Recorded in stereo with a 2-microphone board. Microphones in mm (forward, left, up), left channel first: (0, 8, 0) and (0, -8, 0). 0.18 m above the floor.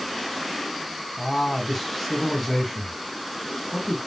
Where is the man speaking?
20° left (ahead or behind), 1.3 m.